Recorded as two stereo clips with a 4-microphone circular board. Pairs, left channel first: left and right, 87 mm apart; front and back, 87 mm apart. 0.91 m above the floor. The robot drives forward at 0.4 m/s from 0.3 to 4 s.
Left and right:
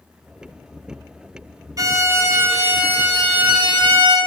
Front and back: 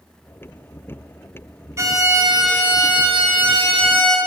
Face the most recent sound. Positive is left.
turn(degrees=-165)